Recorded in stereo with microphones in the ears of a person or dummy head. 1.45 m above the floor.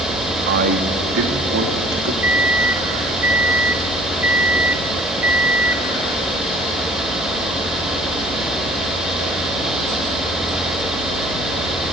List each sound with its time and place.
0.5 s a man speaking: 60° right (ahead or behind), 2.0 m; by 2.1 s 70° right (ahead or behind), 3 m
2.2 s a microwave: 10° right (ahead or behind), 0.6 m